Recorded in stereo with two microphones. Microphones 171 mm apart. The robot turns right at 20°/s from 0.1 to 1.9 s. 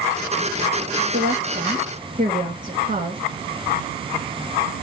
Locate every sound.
1.1 s a woman speaking: 65° right (ahead or behind), 1.3 m; by 3.2 s 50° right (ahead or behind), 1.3 m